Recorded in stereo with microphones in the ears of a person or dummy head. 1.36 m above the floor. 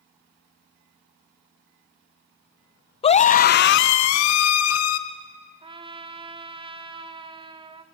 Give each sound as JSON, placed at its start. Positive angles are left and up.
{"t": 3.0, "sound": "a scream", "side_deg": 30, "distance_m": 0.9}
{"t": 5.6, "sound": "a trumpet", "side_deg": -25, "distance_m": 1.3}